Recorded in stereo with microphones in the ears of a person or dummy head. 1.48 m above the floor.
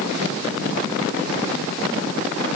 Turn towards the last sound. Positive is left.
No sound to turn to.